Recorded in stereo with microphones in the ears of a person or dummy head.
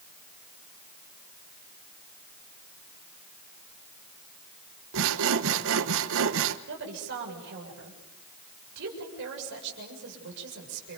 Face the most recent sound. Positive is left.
turn(degrees=-65)  # may be behind; listen again after turning